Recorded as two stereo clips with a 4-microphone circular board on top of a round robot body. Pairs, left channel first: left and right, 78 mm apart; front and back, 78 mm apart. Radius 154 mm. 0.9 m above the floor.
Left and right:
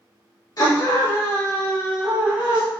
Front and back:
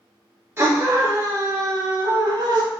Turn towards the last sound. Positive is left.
turn(degrees=-165)